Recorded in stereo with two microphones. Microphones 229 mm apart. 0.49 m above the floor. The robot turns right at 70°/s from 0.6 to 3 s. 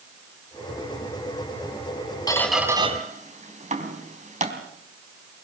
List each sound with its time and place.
2.3 s a squeak: 15° left (ahead or behind), 3.5 m; by 4.5 s 30° right (ahead or behind), 3.5 m